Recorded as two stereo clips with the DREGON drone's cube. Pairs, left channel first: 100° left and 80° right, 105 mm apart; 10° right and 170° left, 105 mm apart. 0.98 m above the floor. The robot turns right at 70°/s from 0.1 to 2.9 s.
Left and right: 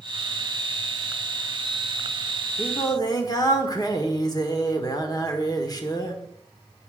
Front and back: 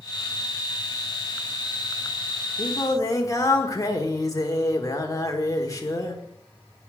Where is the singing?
25° left, 1.4 m; by 6.2 s 45° left, 1.4 m.